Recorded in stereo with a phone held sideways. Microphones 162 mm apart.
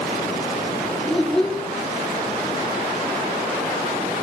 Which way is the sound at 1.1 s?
Centre (ahead or behind).